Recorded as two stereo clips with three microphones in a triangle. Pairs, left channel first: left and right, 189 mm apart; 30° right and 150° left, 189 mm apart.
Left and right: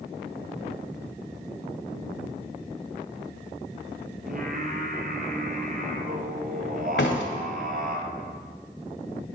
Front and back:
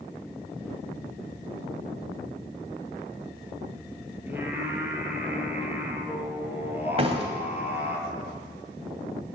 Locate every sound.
4.3 s singing: 130° right, 2 m
7.0 s a door slam: 95° left, 2 m